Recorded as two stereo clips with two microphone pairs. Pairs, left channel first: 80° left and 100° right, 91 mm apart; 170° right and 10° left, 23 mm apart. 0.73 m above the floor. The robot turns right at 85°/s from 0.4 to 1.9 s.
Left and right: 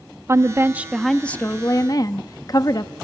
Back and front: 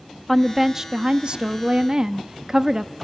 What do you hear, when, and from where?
0.3 s a woman speaking: 70° right, 0.6 m; by 2.9 s 60° left, 0.6 m